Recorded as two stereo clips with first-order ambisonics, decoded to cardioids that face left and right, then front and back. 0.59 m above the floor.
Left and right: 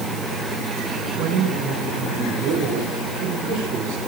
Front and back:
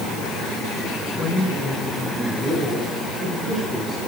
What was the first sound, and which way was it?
A man speaking, 75° right.